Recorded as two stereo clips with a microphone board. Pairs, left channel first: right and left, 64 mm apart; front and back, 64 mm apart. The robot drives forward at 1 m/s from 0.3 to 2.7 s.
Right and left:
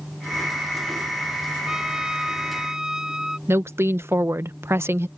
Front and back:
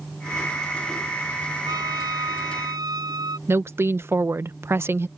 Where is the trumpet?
170° left.